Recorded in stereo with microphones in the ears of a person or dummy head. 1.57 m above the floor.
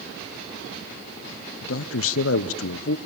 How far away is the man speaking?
About 0.8 m.